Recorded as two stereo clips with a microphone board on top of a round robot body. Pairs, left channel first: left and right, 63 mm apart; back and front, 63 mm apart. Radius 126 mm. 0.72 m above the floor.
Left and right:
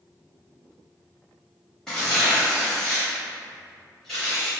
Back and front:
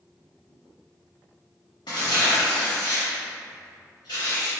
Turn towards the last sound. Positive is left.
turn(degrees=170)